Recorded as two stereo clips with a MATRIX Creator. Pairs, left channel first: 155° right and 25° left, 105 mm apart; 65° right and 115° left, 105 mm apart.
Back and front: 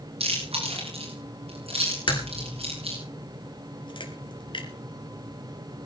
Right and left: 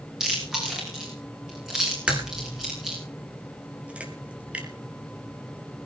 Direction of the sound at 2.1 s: 175° right.